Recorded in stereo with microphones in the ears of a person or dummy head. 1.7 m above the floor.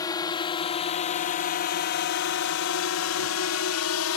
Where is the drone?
20° left (ahead or behind); by 4.2 s 90° left.